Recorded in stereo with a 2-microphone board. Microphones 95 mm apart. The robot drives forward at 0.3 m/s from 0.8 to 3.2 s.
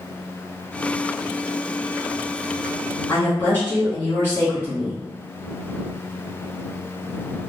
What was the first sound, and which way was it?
A woman speaking, 20° left (ahead or behind).